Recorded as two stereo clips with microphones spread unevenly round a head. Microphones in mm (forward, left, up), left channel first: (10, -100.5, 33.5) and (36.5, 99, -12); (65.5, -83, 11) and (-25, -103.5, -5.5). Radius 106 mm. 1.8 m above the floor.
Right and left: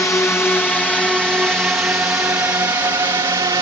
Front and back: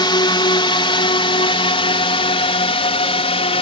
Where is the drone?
15° right; by 3.6 s 10° left.